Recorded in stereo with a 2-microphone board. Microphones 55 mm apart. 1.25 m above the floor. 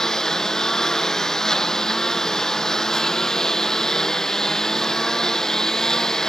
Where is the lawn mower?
10° left (ahead or behind).